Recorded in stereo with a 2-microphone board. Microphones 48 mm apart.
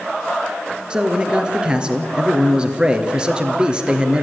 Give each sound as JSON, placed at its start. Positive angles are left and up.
{"t": 0.9, "sound": "a man speaking", "side_deg": -20, "distance_m": 2.0}